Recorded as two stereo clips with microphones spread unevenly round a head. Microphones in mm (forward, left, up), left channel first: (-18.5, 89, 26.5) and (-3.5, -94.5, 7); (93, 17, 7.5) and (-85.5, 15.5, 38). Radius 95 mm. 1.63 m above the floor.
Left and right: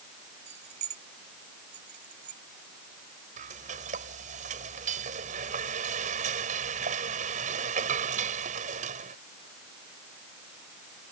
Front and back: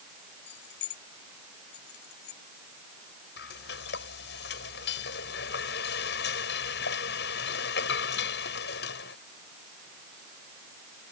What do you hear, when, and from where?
0.5 s keys jangling: 30° right; by 2.4 s 35° right
3.4 s frying: 35° right